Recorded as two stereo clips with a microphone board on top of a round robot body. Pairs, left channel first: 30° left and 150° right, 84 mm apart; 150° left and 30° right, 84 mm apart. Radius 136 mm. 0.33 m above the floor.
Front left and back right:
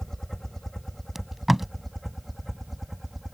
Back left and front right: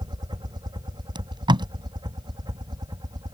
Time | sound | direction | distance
0.0 | a helicopter | 55° right | ?
1.1 | tape being pulled | 60° right | ?